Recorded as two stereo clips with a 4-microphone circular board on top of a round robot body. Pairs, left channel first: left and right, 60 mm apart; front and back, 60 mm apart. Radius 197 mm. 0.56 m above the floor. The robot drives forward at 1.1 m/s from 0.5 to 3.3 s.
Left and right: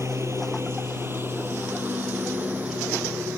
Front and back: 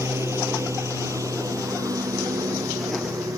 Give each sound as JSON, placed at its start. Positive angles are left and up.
{"t": 0.0, "sound": "a lawn mower", "azimuth_deg": -135}